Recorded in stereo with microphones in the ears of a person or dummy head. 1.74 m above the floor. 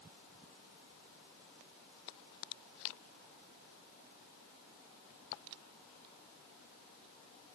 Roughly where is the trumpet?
No trumpet in this recording.